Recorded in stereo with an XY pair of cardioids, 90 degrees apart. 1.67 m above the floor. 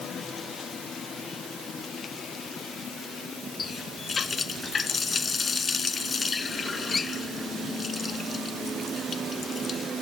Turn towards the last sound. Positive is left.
turn(degrees=40)